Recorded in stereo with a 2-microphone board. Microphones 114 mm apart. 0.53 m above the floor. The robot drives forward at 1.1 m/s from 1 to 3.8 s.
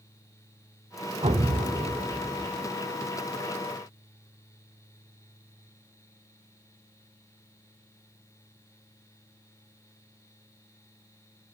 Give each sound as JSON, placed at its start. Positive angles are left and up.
{"t": 1.2, "sound": "an explosion", "side_deg": -60, "distance_m": 0.8}